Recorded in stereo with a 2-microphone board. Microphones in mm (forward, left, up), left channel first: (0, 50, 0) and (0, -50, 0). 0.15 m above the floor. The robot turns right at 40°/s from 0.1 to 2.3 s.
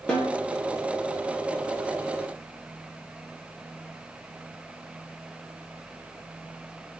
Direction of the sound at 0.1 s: 10° left (ahead or behind).